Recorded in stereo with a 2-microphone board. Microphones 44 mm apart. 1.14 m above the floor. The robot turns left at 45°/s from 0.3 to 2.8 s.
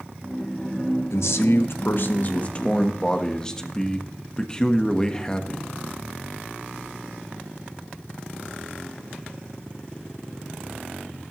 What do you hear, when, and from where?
1.1 s a man speaking: 95° left, 1.2 m; by 5.7 s 15° left, 1.2 m